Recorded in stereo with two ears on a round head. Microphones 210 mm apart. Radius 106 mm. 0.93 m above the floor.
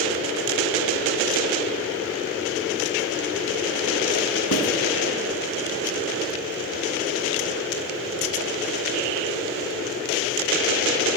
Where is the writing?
65° left (ahead or behind), 1.9 m.